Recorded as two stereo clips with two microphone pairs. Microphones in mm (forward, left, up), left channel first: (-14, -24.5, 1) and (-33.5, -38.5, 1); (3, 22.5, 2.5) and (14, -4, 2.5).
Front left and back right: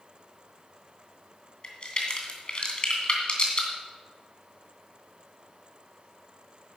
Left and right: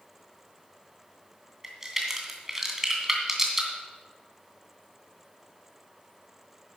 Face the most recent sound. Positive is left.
turn(degrees=5)